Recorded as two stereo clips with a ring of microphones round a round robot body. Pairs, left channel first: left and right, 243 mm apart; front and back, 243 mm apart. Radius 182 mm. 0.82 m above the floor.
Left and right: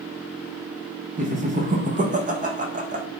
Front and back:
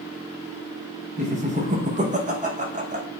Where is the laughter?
135° right, 0.5 m.